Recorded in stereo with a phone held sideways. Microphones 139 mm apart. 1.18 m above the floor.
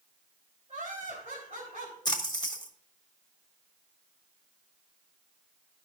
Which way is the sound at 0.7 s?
50° right (ahead or behind).